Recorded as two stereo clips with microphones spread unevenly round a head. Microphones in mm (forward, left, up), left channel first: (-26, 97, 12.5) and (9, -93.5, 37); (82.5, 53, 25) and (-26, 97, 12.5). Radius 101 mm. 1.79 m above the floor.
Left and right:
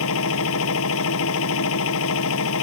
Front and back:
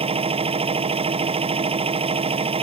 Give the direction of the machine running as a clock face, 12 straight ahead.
8 o'clock.